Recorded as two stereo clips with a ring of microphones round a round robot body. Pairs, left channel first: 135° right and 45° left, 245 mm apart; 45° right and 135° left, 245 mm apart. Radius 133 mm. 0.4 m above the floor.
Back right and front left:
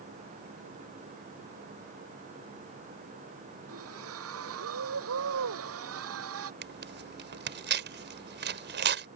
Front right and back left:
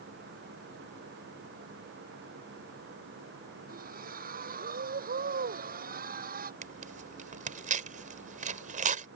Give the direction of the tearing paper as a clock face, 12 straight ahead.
9 o'clock.